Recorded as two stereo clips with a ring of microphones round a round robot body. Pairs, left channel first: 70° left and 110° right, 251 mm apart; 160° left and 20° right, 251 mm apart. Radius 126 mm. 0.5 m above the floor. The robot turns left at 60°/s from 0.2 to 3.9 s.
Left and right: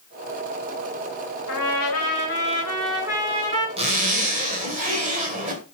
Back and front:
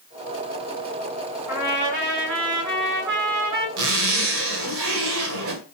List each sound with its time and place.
1.5 s a trumpet: 65° left, 6 m; by 3.7 s 70° right, 6 m
3.8 s a zipper: 45° right, 1.9 m; by 5.6 s 55° right, 1.9 m